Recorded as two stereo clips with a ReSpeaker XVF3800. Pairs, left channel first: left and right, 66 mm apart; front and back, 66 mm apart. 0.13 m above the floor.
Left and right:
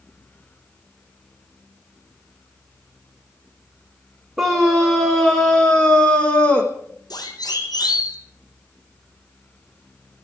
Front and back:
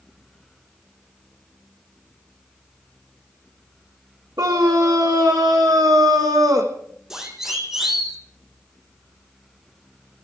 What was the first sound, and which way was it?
A scream, straight behind.